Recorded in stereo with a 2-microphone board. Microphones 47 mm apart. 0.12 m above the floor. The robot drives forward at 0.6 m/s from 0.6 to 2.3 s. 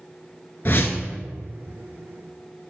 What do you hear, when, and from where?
0.7 s a whoosh: 50° left (ahead or behind), 0.5 m